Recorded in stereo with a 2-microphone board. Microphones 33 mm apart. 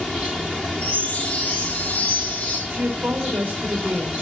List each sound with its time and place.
0.8 s a chime: 50° left (ahead or behind), 5.5 m
2.7 s a woman speaking: 85° right, 5.5 m